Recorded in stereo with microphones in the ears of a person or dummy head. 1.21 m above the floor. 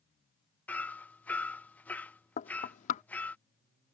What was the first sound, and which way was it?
Hammering, centre (ahead or behind).